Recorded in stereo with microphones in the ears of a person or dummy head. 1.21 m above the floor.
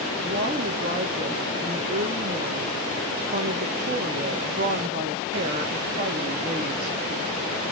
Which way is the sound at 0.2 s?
40° right (ahead or behind).